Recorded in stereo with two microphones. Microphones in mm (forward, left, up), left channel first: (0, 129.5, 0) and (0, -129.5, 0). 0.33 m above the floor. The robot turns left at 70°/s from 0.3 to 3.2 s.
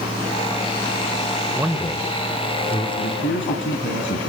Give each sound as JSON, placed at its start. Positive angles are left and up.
{"t": 1.6, "sound": "a man speaking", "side_deg": -10, "distance_m": 0.9}
{"t": 3.0, "sound": "a man speaking", "side_deg": 60, "distance_m": 3.0}